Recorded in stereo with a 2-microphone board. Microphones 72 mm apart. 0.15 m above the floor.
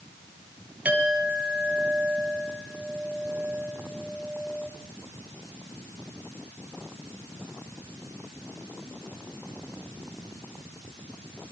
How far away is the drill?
No drill in this recording.